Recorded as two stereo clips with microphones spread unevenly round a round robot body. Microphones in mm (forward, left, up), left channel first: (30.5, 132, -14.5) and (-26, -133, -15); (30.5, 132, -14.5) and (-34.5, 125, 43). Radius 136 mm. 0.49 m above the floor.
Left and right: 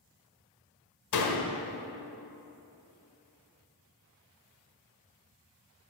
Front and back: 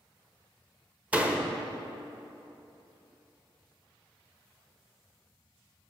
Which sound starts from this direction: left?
A door slam, at 1.1 s.